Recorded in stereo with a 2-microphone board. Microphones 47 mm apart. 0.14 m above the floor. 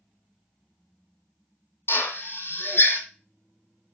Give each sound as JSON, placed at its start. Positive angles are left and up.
{"t": 1.9, "sound": "a drill", "side_deg": 60, "distance_m": 1.9}